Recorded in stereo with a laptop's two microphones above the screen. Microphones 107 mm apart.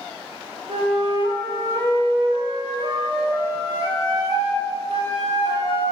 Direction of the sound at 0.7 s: 85° right.